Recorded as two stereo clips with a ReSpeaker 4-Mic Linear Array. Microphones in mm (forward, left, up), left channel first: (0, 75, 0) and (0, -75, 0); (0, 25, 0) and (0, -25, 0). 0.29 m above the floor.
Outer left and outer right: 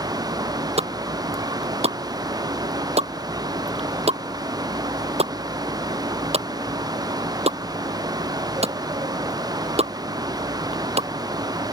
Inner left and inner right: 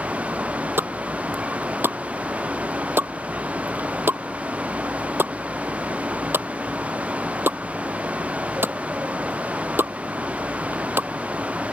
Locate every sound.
0.8 s a pop: 45° right (ahead or behind)